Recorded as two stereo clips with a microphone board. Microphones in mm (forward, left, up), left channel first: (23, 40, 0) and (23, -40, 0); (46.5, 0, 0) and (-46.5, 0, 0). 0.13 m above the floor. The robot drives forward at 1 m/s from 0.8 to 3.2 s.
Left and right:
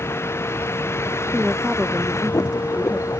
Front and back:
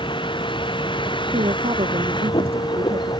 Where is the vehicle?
30° left; by 3.2 s 35° left.